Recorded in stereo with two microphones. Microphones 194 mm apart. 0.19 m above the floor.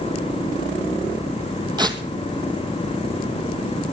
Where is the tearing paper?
20° right (ahead or behind), 1.5 m.